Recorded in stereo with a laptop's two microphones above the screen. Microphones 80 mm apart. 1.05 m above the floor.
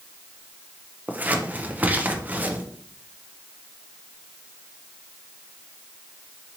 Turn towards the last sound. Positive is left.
turn(degrees=-20)  # may be behind; listen again after turning